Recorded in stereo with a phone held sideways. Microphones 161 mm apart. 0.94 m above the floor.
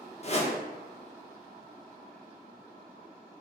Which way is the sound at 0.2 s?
40° left (ahead or behind).